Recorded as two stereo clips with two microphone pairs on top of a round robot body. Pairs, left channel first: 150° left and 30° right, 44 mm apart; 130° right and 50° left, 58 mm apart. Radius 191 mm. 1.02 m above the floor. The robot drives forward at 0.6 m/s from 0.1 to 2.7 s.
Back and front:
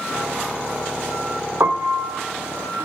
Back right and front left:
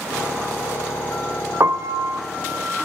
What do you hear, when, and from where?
1.6 s a piano: straight ahead, 1.1 m